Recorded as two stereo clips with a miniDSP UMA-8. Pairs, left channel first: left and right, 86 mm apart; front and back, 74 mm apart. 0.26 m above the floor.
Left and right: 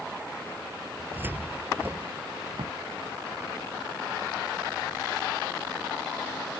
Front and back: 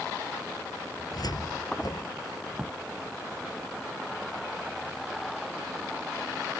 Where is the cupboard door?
25° right.